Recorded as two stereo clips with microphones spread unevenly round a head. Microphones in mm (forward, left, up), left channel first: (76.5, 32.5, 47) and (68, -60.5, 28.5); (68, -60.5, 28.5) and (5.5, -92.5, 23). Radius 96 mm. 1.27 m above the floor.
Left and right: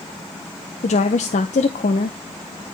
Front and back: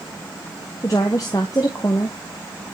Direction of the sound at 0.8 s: 100° left.